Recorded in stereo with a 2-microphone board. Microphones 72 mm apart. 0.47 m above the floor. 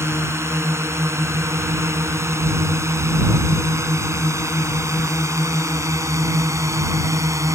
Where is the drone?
40° right (ahead or behind); by 7.5 s 45° right (ahead or behind).